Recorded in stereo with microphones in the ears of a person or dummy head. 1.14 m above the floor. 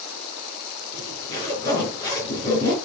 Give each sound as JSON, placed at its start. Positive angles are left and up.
{"t": 0.9, "sound": "a zipper", "side_deg": 20, "distance_m": 4.5}